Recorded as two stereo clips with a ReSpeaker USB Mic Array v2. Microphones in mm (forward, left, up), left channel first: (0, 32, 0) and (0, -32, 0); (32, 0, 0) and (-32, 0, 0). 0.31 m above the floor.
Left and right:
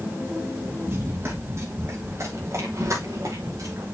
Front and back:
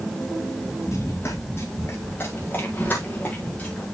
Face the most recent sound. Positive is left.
turn(degrees=-70)